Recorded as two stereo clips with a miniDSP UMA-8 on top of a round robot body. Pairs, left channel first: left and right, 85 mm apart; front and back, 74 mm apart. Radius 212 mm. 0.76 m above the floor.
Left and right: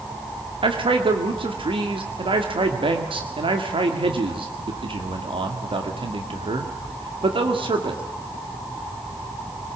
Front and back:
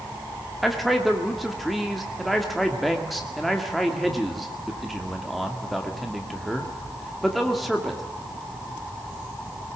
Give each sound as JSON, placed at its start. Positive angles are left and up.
{"t": 0.6, "sound": "a man speaking", "azimuth_deg": -90, "distance_m": 2.0}